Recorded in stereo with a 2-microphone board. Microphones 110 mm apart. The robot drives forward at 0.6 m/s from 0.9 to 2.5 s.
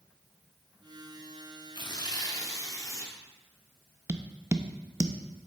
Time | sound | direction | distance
1.8 | tearing paper | 45° left (ahead or behind) | 0.9 m
4.1 | tapping | 25° right (ahead or behind) | 0.5 m